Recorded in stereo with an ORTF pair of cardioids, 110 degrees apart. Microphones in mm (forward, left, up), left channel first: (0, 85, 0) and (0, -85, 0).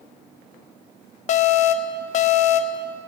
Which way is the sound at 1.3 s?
45° left.